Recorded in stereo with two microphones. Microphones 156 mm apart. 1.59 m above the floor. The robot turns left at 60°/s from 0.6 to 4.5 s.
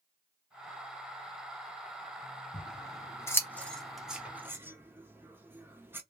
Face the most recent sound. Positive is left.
turn(degrees=-15)  # may be behind; listen again after turning